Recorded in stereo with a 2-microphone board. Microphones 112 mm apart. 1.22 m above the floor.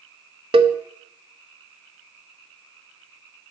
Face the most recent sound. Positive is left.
turn(degrees=-55)  # may be behind; listen again after turning